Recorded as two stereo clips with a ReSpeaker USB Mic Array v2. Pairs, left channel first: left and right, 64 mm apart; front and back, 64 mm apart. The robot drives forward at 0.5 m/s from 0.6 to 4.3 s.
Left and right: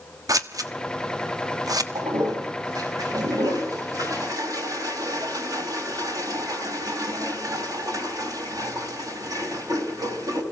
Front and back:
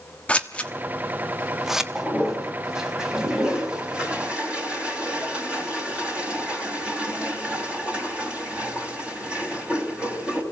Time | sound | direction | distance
0.3 | scissors | 70° right | 1.3 m
1.9 | a toilet flushing | 95° right | 4 m